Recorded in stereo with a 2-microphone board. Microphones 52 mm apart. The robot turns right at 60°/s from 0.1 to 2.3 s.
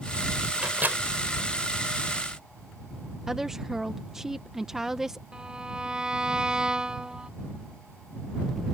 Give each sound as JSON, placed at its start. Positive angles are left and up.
{"t": 0.6, "sound": "a microwave", "side_deg": -20}
{"t": 3.3, "sound": "a woman speaking", "side_deg": -10}
{"t": 5.3, "sound": "a violin", "side_deg": -15}